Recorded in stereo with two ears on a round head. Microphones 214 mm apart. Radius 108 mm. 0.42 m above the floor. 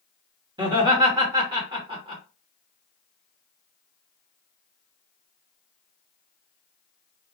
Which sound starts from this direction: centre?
Laughter, at 0.6 s.